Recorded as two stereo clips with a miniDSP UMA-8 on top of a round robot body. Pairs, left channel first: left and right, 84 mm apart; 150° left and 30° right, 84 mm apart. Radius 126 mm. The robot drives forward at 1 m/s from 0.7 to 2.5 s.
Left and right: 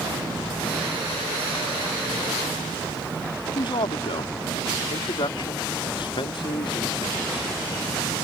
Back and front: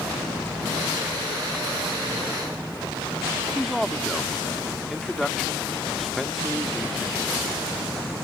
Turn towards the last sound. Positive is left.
turn(degrees=60)